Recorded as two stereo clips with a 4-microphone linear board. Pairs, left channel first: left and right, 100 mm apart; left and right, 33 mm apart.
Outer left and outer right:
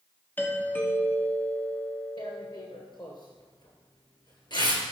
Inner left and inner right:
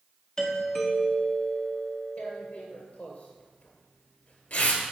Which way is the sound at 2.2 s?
50° left (ahead or behind).